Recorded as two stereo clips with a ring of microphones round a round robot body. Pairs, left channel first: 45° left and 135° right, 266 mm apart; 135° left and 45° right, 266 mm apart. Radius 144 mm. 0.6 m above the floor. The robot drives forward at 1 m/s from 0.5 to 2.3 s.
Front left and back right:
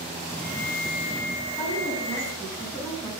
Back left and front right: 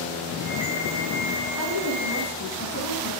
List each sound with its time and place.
1.6 s a woman speaking: 125° left, 7 m; by 3.1 s 130° left, 7.5 m